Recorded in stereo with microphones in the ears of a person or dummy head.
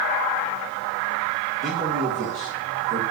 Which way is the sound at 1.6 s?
40° right (ahead or behind).